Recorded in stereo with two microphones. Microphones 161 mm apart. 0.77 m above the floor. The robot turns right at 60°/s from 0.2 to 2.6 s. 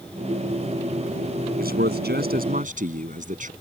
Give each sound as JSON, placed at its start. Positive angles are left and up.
{"t": 1.6, "sound": "a man speaking", "azimuth_deg": -115}